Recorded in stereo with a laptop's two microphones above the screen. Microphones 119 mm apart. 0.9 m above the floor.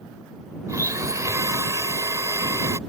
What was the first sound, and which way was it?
A blender, 30° right (ahead or behind).